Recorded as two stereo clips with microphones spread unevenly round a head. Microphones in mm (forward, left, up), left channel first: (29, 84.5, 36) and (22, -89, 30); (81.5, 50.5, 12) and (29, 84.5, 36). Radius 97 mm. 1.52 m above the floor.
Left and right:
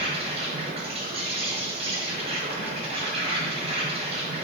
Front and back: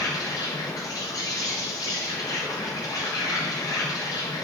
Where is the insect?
35° right, 1.3 m.